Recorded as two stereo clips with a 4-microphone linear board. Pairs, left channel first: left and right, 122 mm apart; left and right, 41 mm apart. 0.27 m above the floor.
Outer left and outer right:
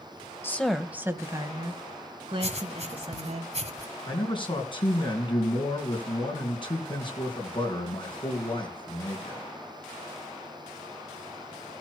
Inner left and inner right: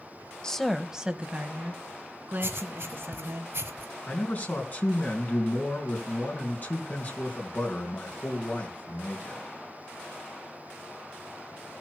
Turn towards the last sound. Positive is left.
turn(degrees=40)  # may be behind; listen again after turning